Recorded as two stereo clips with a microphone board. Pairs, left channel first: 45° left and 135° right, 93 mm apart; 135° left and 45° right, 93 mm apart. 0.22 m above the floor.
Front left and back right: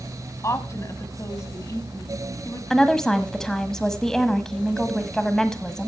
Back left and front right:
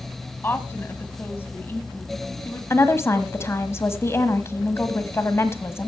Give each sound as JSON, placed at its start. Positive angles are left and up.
{"t": 0.4, "sound": "a woman speaking", "azimuth_deg": 80, "distance_m": 1.4}
{"t": 2.7, "sound": "a woman speaking", "azimuth_deg": 125, "distance_m": 1.2}